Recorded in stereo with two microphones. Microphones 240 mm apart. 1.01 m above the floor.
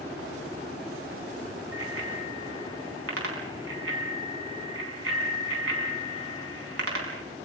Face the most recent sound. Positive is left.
turn(degrees=-70)  # may be behind; listen again after turning